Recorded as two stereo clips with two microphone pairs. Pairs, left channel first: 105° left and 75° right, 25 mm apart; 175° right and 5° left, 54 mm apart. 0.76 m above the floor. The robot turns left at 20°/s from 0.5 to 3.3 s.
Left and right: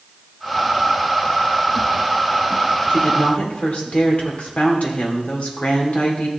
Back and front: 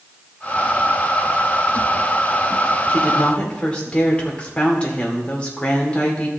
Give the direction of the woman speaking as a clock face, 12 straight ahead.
8 o'clock.